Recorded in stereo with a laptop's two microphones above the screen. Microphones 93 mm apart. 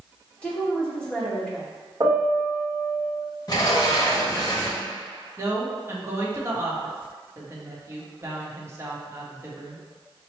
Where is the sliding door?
40° left (ahead or behind), 1.2 m.